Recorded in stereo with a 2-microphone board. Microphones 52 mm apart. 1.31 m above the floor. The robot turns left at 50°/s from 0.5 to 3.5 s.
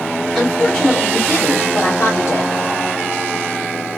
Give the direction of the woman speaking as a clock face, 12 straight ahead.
6 o'clock.